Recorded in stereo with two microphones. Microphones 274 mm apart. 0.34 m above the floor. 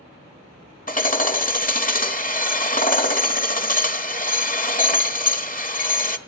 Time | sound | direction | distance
0.9 | hammering | 30° left (ahead or behind) | 1.3 m